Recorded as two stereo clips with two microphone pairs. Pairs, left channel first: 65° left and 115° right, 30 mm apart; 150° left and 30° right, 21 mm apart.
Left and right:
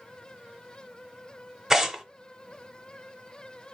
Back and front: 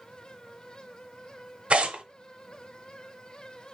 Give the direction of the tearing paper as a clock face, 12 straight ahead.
1 o'clock.